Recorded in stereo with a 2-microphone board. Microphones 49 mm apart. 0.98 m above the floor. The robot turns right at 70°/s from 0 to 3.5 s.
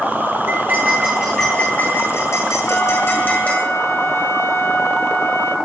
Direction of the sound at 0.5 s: 60° right.